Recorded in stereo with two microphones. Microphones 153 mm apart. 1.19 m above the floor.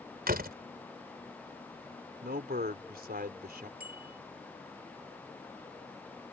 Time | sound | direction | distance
0.3 | a door slam | 85° right | ?
2.2 | a man speaking | 85° right | ?
3.8 | a bicycle bell | 80° right | ?